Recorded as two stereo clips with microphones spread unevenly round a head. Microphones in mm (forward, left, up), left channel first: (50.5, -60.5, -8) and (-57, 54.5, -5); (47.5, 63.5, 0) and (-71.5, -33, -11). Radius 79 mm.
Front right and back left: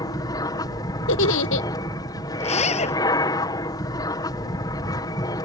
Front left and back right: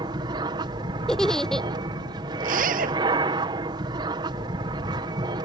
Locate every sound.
0.0 s an aircraft: 100° right
1.1 s a giggle: 45° right
2.4 s a zipper: 100° right